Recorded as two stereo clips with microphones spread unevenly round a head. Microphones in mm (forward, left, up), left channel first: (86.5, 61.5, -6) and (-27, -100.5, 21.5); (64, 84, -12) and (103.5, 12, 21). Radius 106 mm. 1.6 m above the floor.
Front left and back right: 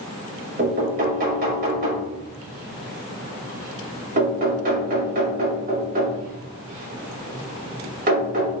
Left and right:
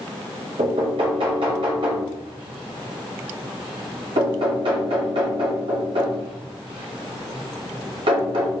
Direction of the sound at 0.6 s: 80° right.